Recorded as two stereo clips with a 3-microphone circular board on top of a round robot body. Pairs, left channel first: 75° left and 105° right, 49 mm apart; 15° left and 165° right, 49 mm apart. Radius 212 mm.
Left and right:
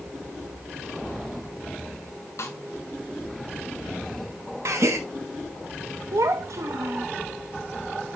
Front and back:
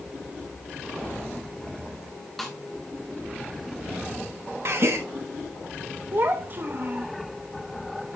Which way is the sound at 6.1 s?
115° right.